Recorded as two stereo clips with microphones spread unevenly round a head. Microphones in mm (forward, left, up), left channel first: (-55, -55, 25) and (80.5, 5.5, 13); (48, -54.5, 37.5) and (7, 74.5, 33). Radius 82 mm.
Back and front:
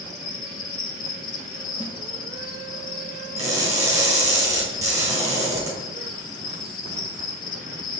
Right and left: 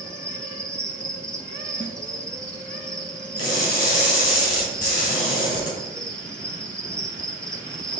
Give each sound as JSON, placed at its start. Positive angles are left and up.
{"t": 0.0, "sound": "an insect", "azimuth_deg": -155, "distance_m": 1.1}
{"t": 1.8, "sound": "a snare drum", "azimuth_deg": -100, "distance_m": 1.0}
{"t": 3.4, "sound": "crushing", "azimuth_deg": -45, "distance_m": 3.5}